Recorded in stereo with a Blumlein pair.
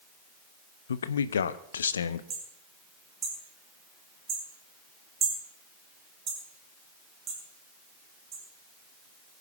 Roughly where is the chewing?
No chewing in this recording.